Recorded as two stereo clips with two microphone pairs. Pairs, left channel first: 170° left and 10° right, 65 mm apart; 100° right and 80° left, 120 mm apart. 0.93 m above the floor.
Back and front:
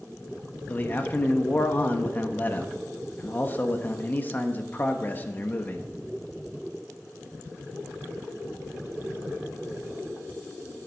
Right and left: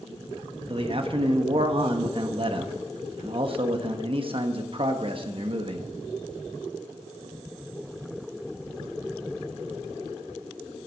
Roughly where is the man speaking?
Behind left.